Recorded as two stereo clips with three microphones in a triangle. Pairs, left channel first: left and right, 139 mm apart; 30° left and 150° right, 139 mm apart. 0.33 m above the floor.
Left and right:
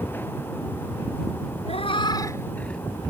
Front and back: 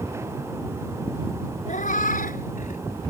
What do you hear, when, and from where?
1.7 s a cat meowing: 50° left; by 2.8 s 5° left